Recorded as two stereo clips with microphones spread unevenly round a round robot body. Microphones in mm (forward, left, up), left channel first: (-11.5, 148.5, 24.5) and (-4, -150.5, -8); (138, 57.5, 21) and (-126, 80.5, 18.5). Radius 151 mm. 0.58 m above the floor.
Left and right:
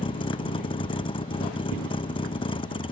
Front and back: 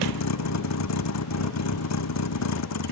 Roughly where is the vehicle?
Ahead.